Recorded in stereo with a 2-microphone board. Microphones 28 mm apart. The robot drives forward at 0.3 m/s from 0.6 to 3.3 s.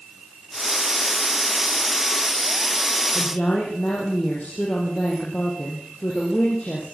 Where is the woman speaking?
50° left (ahead or behind), 8 m.